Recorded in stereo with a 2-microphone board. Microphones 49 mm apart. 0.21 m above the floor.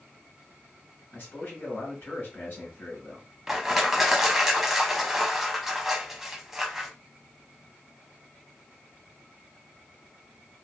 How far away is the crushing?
About 0.5 m.